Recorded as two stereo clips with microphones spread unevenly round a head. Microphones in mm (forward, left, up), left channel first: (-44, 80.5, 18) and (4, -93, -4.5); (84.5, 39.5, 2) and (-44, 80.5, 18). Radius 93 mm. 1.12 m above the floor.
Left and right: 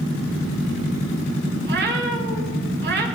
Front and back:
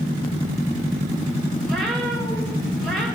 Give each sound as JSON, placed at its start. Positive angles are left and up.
{"t": 1.6, "sound": "a cat meowing", "azimuth_deg": -105, "distance_m": 2.5}